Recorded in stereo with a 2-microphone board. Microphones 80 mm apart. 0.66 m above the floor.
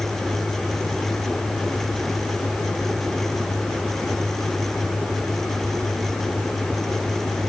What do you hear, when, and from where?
Only background noise.